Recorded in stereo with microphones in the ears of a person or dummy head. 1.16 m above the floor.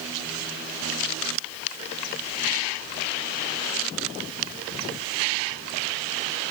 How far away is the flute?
I don't hear a flute.